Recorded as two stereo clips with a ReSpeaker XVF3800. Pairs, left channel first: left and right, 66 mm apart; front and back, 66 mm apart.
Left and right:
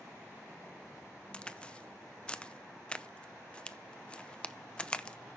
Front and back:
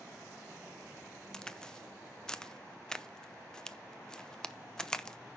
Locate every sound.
1.3 s a crack: 60° left, 0.6 m